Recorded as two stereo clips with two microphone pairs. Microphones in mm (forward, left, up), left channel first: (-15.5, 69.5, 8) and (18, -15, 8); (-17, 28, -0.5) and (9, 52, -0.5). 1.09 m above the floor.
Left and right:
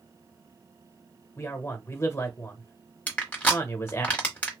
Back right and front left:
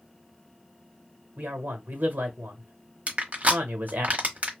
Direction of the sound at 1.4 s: 55° left.